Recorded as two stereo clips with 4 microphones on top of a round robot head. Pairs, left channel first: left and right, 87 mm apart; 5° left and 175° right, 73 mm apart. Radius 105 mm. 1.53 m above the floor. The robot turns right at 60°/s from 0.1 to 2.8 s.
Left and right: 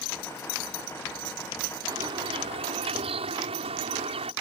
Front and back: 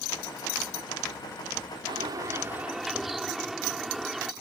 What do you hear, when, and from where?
1.9 s a bird: 145° right; by 4.3 s 90° right